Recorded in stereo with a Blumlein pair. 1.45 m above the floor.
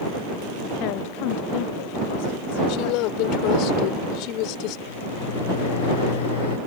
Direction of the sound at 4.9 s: 60° left.